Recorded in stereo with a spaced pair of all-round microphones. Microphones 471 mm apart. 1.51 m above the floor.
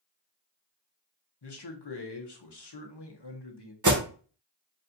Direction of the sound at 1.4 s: 60° left (ahead or behind).